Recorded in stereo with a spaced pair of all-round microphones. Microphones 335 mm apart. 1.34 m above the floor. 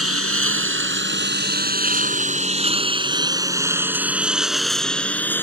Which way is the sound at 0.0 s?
45° right (ahead or behind).